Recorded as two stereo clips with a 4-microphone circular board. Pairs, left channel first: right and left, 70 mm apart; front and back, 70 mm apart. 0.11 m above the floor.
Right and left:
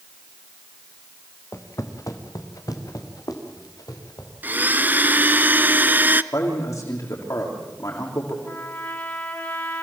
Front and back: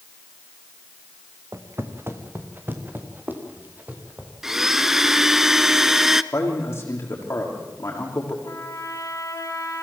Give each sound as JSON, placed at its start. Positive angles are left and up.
{"t": 1.5, "sound": "footsteps", "azimuth_deg": -135, "distance_m": 2.0}
{"t": 4.4, "sound": "a blender", "azimuth_deg": 105, "distance_m": 0.6}
{"t": 6.3, "sound": "a man speaking", "azimuth_deg": -55, "distance_m": 6.5}
{"t": 8.4, "sound": "a trumpet", "azimuth_deg": -35, "distance_m": 4.0}